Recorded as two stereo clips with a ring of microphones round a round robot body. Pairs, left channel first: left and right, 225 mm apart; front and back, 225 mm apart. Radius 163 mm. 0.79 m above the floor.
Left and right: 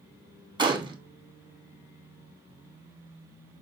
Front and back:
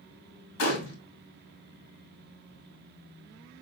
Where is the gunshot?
20° right, 1.2 m.